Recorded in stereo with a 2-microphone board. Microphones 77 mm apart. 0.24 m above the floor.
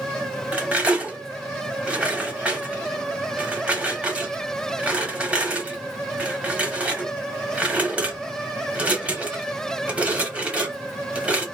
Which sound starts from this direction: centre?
Cutlery clinking, at 0.5 s.